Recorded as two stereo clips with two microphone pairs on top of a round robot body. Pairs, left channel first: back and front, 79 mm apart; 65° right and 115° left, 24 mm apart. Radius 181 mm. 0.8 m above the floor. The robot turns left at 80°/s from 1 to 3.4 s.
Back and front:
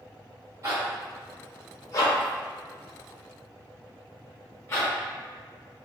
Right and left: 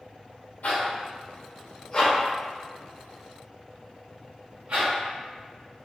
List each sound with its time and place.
0.6 s a zipper: 50° right, 0.6 m; by 4.9 s 115° left, 0.6 m